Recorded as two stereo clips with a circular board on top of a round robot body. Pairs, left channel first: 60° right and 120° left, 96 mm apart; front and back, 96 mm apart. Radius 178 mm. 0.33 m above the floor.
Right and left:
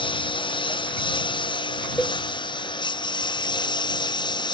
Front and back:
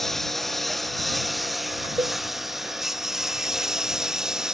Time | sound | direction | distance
0.0 | a lawn mower | 90° right | ?
2.0 | a cowbell | 135° right | ?